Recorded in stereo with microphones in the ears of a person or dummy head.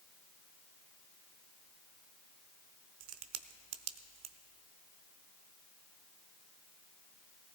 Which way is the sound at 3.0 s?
85° right.